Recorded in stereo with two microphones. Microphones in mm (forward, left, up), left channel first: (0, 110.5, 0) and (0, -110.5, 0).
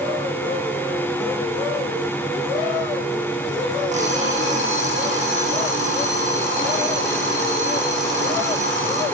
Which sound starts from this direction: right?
An alarm clock, at 3.9 s.